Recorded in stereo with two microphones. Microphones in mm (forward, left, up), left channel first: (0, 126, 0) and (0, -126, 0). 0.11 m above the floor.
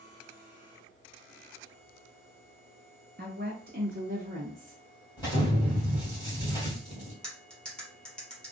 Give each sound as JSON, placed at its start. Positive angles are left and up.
{"t": 3.2, "sound": "a woman speaking", "side_deg": -45, "distance_m": 1.5}
{"t": 5.2, "sound": "an explosion", "side_deg": 15, "distance_m": 2.5}
{"t": 7.2, "sound": "cutlery clinking", "side_deg": 5, "distance_m": 1.6}